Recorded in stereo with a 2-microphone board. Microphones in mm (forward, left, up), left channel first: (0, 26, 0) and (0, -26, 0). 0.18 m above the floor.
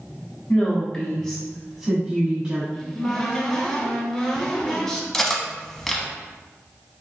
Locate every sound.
0.5 s a woman speaking: 30° left (ahead or behind), 1.4 m; by 2.6 s 25° right (ahead or behind), 1.4 m
2.7 s a cupboard door: 10° left (ahead or behind), 1.0 m
5.1 s cutlery clinking: 10° left (ahead or behind), 0.6 m